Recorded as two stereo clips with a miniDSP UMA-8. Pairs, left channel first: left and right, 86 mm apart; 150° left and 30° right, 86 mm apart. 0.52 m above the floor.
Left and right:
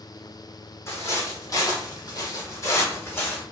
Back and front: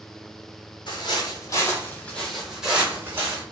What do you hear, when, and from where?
0.9 s footsteps: 145° left, 0.9 m; by 3.4 s 30° left, 1.1 m